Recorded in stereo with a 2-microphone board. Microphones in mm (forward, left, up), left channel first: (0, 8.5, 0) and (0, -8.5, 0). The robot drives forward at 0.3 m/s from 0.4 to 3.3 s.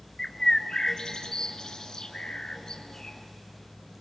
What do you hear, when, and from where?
0.2 s a bird: 35° left (ahead or behind), 1.5 m; by 3.2 s 45° left (ahead or behind), 1.3 m